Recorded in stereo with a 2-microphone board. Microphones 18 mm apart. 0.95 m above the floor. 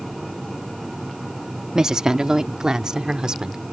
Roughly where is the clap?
No clap in this recording.